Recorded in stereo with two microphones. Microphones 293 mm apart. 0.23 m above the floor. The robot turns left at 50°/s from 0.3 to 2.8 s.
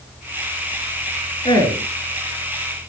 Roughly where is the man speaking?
Centre.